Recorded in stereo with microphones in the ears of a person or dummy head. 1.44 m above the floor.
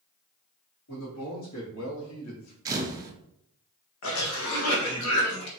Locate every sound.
0.9 s a man speaking: 70° left (ahead or behind), 2 m; by 2.5 s 85° left, 1.4 m
2.6 s a camera shutter: 25° right (ahead or behind), 0.9 m
4.0 s a cough: 75° left (ahead or behind), 1.3 m